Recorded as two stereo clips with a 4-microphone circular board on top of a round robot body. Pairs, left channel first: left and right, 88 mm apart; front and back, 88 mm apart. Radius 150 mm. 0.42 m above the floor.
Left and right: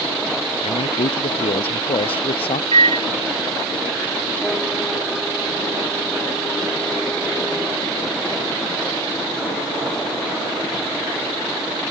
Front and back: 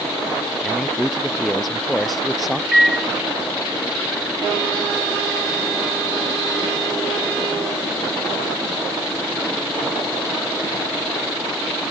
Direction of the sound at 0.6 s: 85° left.